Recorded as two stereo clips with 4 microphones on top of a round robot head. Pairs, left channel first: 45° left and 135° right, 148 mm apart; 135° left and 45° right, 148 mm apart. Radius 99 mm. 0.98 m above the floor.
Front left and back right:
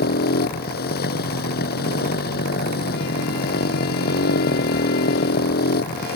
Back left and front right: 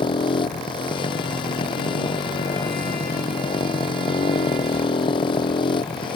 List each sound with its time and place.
0.0 s a motorcycle: 75° left